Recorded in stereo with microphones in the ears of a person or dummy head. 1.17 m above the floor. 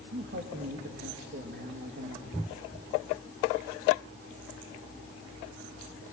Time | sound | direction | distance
0.1 | a man speaking | 55° right (ahead or behind) | 1.5 m